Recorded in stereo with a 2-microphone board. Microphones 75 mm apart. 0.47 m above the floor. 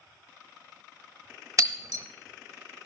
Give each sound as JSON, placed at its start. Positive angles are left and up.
{"t": 1.6, "sound": "breaking glass", "side_deg": -50, "distance_m": 0.9}